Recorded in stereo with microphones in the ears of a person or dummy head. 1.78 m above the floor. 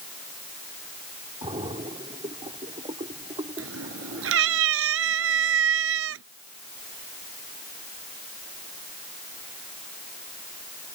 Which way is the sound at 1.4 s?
35° right (ahead or behind).